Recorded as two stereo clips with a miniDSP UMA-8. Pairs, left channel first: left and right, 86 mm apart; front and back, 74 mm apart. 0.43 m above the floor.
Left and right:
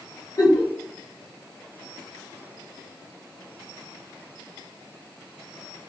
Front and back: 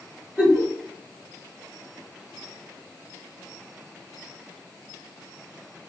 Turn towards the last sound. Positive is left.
turn(degrees=85)